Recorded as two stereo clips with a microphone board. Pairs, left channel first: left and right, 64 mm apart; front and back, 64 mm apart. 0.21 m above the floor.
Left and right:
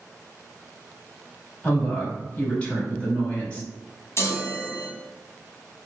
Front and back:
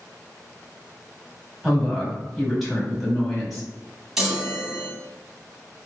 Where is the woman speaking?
90° left, 1.0 m.